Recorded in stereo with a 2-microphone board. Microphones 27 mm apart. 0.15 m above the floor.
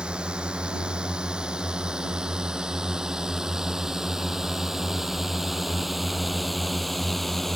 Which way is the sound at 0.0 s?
40° right (ahead or behind).